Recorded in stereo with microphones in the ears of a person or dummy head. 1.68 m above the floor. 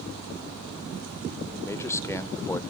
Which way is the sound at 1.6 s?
15° left (ahead or behind).